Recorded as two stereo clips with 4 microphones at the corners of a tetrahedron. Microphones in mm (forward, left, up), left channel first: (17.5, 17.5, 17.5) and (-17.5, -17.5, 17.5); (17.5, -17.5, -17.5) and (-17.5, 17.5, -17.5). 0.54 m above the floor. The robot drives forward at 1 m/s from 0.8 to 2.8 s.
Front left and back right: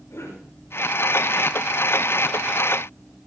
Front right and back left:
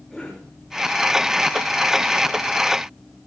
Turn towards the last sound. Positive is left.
turn(degrees=55)